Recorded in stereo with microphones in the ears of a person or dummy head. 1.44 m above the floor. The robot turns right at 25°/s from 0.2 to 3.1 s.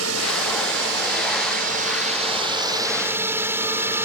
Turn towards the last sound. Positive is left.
turn(degrees=-20)